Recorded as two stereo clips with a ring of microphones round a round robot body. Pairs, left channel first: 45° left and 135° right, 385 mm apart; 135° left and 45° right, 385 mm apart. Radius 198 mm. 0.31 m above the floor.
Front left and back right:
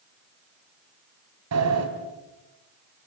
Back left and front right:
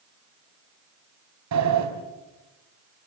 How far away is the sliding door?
About 3 m.